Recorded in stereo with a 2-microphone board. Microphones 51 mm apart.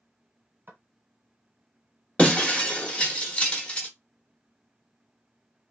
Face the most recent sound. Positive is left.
turn(degrees=25)  # may be behind; listen again after turning